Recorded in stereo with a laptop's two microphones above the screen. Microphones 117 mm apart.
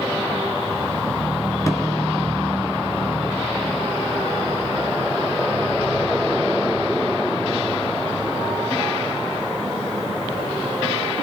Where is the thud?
25° left (ahead or behind), 1.3 m.